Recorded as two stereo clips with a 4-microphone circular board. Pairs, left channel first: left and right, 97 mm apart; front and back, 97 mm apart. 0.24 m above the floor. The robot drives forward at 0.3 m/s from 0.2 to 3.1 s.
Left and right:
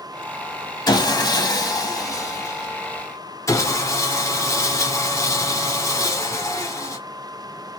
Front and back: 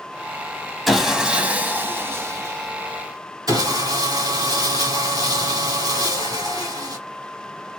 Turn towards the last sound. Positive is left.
turn(degrees=140)